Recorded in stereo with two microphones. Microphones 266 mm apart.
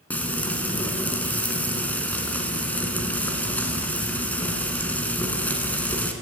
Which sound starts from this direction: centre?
Frying, at 0.1 s.